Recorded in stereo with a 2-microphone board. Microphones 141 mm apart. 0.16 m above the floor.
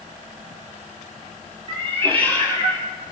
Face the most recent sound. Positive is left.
turn(degrees=-30)  # may be behind; listen again after turning